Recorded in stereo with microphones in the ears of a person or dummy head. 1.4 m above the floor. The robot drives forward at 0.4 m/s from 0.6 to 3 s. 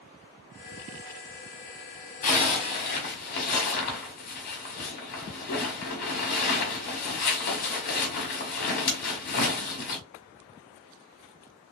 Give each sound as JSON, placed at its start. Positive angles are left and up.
{"t": 2.2, "sound": "a zipper", "side_deg": 40, "distance_m": 1.4}